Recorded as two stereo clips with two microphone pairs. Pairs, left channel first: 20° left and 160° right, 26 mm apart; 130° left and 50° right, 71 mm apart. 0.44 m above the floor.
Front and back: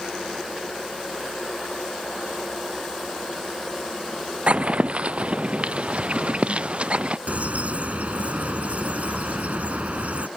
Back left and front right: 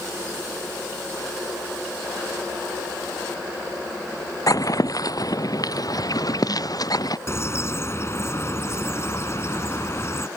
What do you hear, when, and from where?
4.5 s footsteps: 165° left; by 7.2 s 160° left
7.3 s a bird: straight behind